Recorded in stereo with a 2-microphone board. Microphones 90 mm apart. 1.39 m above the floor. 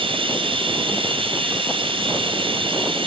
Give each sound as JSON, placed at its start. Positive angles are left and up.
{"t": 0.0, "sound": "running water", "side_deg": -80, "distance_m": 4.5}